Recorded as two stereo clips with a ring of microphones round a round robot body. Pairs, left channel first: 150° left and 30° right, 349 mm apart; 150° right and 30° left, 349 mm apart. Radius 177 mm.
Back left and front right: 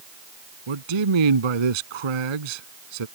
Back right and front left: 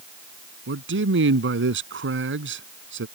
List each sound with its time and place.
0.7 s a man speaking: 30° right